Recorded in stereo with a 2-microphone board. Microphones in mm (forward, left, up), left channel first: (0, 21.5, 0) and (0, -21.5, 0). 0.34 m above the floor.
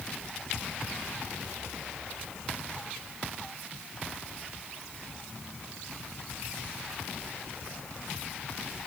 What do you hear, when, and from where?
Only background noise.